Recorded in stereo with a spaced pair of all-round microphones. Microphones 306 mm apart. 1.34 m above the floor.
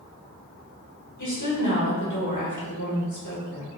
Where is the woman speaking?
70° left (ahead or behind), 1.6 m.